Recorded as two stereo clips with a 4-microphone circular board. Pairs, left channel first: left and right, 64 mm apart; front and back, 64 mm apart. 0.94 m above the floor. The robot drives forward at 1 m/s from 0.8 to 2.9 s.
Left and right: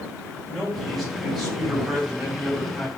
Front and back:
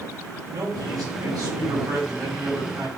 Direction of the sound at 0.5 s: 175° right.